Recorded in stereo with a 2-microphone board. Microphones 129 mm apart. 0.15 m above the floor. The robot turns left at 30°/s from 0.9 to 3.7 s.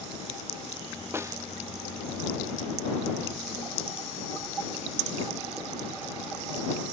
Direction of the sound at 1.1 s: 20° right (ahead or behind).